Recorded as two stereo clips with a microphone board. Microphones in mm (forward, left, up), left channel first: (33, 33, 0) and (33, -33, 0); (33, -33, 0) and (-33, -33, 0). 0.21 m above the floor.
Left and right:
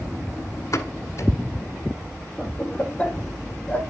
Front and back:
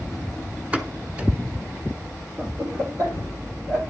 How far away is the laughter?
About 8 m.